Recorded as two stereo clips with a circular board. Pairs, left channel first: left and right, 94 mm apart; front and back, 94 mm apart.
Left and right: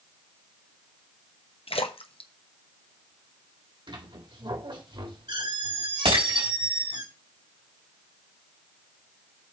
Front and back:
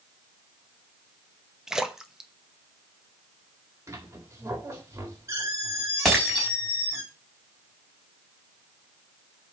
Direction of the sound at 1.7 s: 95° left.